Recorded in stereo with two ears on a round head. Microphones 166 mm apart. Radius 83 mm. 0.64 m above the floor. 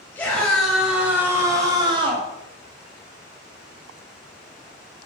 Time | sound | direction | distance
0.1 | a scream | 10° left (ahead or behind) | 4 m